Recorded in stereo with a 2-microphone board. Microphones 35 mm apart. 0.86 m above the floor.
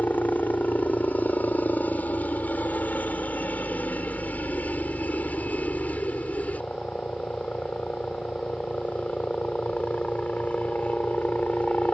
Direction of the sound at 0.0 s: 55° left (ahead or behind).